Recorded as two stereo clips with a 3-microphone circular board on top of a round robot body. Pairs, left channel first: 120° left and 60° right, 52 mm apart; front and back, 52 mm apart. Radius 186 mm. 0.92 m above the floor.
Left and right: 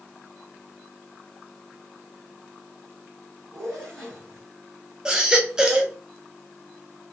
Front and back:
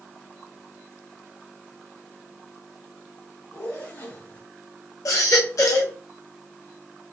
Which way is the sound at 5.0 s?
15° left.